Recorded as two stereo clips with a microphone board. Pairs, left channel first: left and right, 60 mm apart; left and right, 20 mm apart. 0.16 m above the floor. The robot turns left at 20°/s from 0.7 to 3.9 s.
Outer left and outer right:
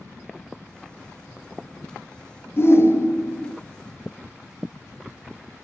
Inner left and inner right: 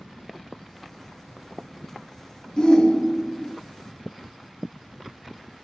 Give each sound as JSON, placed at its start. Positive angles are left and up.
{"t": 2.6, "sound": "a shout", "side_deg": 45, "distance_m": 1.9}